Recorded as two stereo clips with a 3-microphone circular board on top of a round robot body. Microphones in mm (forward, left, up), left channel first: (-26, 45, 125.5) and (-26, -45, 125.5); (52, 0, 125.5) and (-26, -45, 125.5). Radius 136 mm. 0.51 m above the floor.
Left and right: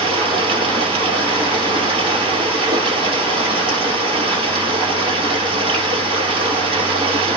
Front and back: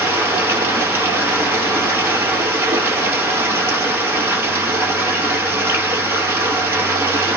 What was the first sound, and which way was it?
Running water, 85° right.